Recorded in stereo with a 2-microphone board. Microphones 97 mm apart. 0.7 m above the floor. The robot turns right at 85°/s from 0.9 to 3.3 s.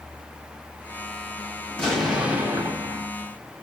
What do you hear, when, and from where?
1.7 s an explosion: 160° left, 1.3 m; by 3.1 s 85° right, 1.3 m